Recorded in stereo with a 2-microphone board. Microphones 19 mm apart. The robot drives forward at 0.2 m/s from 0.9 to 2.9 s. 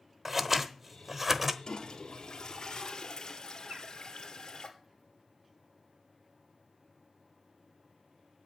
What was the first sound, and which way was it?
Scissors, 15° right (ahead or behind).